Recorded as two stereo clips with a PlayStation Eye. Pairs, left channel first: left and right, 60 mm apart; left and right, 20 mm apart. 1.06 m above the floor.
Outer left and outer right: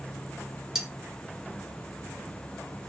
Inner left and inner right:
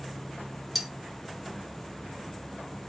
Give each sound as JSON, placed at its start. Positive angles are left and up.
{"t": 0.8, "sound": "cutlery clinking", "side_deg": -10, "distance_m": 1.6}